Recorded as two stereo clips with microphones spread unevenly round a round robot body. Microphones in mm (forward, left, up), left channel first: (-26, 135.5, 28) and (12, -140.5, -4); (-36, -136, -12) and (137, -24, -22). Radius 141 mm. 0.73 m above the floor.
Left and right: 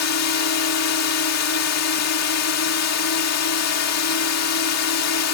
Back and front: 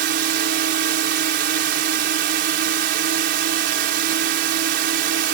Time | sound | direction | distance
0.0 | a drone | 70° left | ?